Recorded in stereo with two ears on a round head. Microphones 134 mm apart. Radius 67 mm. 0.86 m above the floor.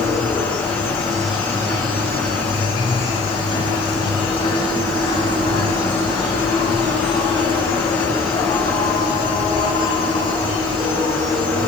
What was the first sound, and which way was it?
An insect, 35° left (ahead or behind).